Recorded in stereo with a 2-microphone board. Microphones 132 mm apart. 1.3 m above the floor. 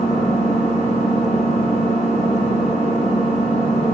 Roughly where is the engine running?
Left.